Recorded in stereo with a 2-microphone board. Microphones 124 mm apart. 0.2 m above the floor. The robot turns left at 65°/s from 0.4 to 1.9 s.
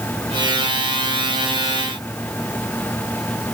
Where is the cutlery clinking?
I don't hear cutlery clinking.